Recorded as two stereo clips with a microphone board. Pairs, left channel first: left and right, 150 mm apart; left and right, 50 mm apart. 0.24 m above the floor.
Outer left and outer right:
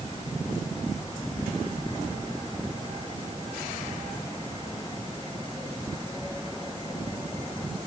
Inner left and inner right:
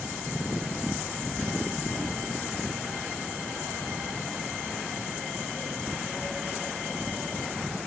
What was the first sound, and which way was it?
Only background noise.